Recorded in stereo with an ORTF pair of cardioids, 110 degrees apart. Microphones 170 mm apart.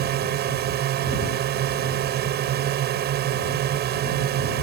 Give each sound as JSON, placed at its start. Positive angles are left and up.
{"t": 0.0, "sound": "a drone", "azimuth_deg": -65}